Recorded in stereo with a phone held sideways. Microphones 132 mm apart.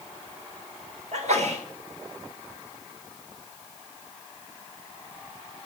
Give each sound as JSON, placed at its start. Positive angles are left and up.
{"t": 1.1, "sound": "a sneeze", "side_deg": -65, "distance_m": 4.0}